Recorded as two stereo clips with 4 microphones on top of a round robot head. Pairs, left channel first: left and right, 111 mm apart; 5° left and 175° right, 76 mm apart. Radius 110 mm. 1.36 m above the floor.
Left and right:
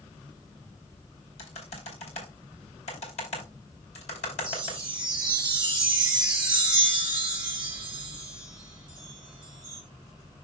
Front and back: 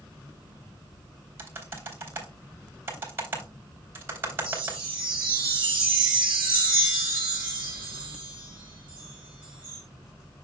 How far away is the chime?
About 1.1 m.